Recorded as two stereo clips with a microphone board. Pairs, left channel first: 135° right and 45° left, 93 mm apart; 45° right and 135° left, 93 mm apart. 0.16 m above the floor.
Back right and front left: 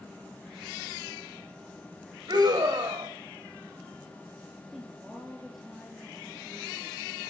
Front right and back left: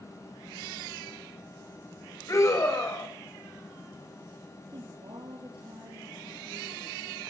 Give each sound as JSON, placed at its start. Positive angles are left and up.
{"t": 2.3, "sound": "a scream", "azimuth_deg": 10, "distance_m": 7.0}
{"t": 4.7, "sound": "a woman speaking", "azimuth_deg": 130, "distance_m": 4.0}